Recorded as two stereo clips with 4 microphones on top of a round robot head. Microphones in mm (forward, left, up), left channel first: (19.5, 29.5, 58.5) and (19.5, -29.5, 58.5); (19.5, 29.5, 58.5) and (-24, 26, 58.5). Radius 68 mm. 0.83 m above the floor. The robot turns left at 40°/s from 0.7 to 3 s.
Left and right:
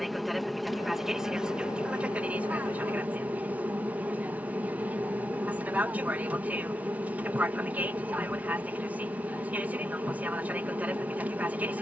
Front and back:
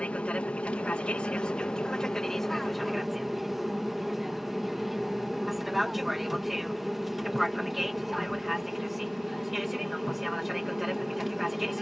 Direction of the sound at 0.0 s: Straight ahead.